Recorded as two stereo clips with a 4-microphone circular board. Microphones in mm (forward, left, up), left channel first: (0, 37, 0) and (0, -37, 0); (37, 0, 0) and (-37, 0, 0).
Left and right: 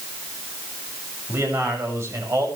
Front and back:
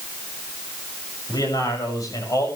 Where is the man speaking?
35° right, 7 m; by 2.5 s 40° right, 7 m.